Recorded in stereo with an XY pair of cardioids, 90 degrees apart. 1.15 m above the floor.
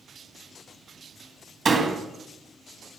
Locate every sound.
1.6 s a door slam: 40° right, 1.5 m